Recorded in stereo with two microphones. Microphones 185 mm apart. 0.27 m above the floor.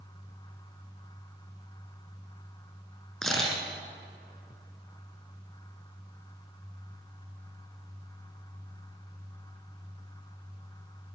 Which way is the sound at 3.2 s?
5° left (ahead or behind).